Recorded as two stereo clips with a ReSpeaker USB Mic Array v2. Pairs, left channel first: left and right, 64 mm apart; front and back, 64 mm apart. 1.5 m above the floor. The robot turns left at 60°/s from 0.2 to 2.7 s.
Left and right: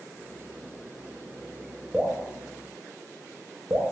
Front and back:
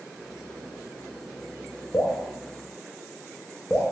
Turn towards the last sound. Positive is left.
turn(degrees=-65)